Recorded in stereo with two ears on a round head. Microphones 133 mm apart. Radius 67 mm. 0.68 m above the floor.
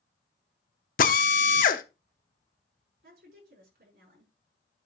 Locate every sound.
1.0 s a drill: 60° left (ahead or behind), 1.0 m
3.0 s a woman speaking: 70° right (ahead or behind), 6.5 m